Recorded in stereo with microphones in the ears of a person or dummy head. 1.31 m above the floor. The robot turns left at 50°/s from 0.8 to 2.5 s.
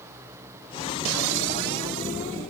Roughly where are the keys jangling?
No keys jangling in this recording.